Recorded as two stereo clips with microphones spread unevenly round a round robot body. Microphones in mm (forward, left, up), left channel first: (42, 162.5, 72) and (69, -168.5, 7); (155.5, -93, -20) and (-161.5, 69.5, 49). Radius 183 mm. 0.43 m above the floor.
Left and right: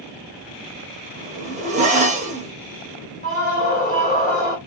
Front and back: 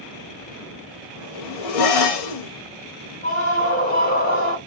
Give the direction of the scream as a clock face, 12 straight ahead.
11 o'clock.